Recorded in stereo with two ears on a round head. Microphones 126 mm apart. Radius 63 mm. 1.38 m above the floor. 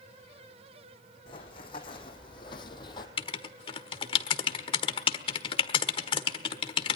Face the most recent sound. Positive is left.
turn(degrees=35)  # may be behind; listen again after turning